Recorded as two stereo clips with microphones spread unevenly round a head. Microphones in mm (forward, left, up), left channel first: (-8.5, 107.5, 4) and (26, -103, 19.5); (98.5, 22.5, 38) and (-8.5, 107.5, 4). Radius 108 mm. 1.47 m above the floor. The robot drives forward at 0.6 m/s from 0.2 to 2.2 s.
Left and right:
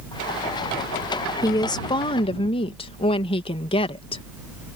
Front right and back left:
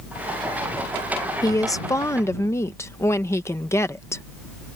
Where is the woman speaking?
25° left; by 4.2 s 35° left.